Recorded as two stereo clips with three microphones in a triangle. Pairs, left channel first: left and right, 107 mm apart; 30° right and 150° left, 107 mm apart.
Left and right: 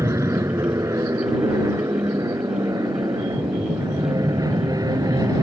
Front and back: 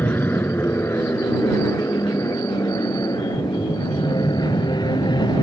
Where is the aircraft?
80° right; by 5.4 s 50° right.